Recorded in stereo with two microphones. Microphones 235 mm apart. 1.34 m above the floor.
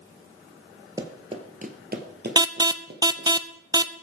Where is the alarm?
15° right (ahead or behind), 0.6 m.